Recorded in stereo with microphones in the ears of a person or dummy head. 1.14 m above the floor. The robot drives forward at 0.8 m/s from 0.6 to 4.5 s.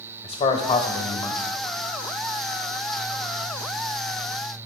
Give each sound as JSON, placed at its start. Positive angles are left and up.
{"t": 0.2, "sound": "a man speaking", "side_deg": 35, "distance_m": 1.1}